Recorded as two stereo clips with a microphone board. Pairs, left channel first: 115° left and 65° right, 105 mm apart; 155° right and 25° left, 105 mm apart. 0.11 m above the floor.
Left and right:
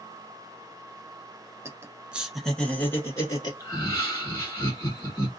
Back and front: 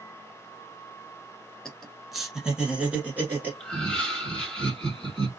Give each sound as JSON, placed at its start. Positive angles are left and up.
{"t": 1.6, "sound": "laughter", "azimuth_deg": -80, "distance_m": 1.1}
{"t": 3.6, "sound": "laughter", "azimuth_deg": 125, "distance_m": 1.3}